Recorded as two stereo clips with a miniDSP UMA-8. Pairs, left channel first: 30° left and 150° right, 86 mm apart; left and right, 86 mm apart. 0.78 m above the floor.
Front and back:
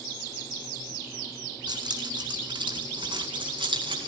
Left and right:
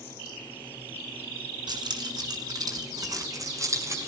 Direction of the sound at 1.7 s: 120° right.